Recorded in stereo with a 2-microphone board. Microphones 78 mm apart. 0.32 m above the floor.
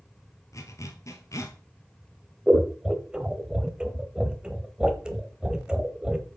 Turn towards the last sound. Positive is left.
turn(degrees=-10)  # may be behind; listen again after turning